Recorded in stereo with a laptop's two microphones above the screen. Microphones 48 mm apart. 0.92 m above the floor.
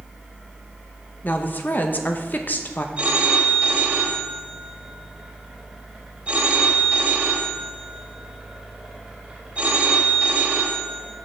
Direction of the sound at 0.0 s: 10° right (ahead or behind).